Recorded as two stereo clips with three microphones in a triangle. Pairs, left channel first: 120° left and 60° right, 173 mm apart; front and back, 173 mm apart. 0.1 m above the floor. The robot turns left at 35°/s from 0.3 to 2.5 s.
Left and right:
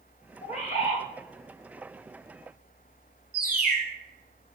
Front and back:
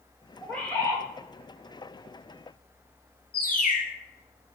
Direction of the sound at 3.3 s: 30° right.